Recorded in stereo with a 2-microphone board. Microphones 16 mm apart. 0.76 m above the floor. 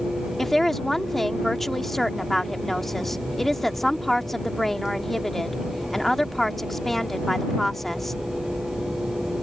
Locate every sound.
0.4 s a woman speaking: 15° left (ahead or behind)